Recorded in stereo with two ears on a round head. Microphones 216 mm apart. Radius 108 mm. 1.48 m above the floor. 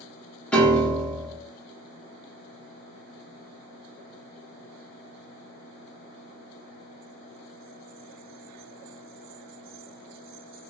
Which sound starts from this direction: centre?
A piano, at 0.5 s.